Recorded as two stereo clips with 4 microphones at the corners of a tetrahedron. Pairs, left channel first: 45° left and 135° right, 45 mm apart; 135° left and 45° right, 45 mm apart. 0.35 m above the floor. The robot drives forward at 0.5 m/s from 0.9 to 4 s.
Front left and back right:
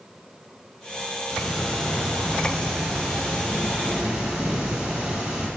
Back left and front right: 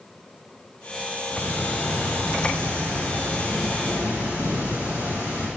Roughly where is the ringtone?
No ringtone in this recording.